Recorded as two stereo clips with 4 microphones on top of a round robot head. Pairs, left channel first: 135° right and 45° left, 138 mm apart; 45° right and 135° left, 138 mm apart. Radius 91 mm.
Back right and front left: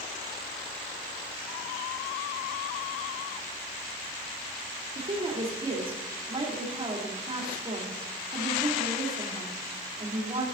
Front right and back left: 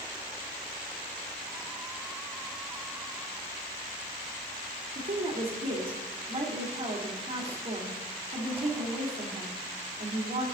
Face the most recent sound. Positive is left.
turn(degrees=90)